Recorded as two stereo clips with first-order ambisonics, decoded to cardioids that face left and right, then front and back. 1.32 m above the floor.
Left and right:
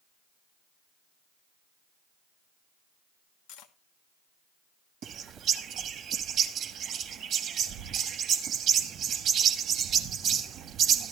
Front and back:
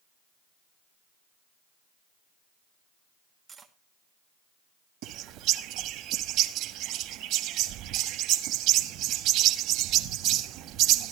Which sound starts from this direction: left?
Cutlery clinking, at 3.5 s.